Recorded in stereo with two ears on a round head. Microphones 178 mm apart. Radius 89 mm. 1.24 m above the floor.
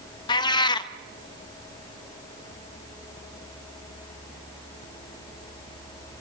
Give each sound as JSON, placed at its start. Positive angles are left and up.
{"t": 0.3, "sound": "a cat meowing", "side_deg": 20, "distance_m": 0.6}